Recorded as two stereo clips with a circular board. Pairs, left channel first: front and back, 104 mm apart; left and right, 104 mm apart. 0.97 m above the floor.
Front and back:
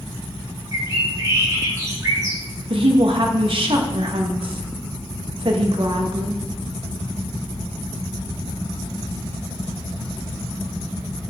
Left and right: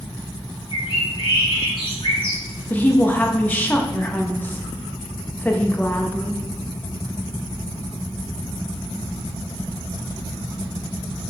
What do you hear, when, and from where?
0.7 s a bird: 125° left, 1.8 m
2.7 s a woman speaking: 160° left, 1.0 m